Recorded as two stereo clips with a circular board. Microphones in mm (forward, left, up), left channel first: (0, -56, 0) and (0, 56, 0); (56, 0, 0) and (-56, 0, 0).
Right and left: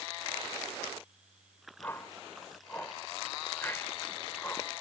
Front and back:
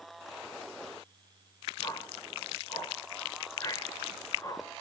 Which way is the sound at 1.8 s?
30° right.